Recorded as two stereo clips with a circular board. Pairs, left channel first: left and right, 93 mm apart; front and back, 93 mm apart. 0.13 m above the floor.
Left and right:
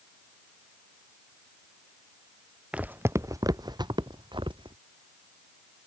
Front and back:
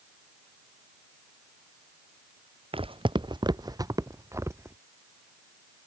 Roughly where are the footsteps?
Behind.